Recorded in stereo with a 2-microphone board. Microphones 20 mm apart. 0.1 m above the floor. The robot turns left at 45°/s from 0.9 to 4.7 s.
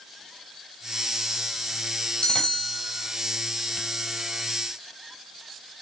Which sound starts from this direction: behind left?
A bell, at 2.2 s.